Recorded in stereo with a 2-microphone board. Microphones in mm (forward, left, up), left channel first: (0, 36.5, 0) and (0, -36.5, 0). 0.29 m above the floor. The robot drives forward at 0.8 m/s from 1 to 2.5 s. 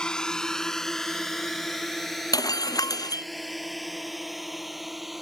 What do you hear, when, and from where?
0.0 s a drone: 10° left (ahead or behind); by 5.2 s centre (ahead or behind)
2.3 s breaking glass: 70° left (ahead or behind)